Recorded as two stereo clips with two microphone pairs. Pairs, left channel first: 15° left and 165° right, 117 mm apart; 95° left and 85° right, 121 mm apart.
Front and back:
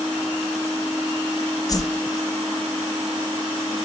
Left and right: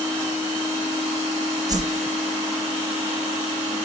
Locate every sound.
1.7 s a whoosh: 35° right, 0.6 m